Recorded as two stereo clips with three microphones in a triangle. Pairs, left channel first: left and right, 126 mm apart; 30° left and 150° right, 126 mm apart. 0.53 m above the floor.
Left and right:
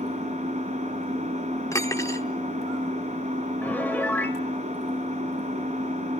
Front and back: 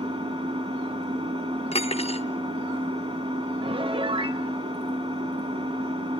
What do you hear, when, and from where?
0.0 s an engine running: 105° right, 2 m
1.7 s cutlery clinking: 30° left, 0.5 m
3.6 s a piano: 170° left, 0.8 m